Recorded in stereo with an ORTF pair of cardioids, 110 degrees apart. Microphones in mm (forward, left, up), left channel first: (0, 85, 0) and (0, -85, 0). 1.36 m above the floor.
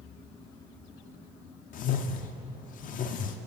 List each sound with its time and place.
1.7 s a whoosh: 55° left, 0.5 m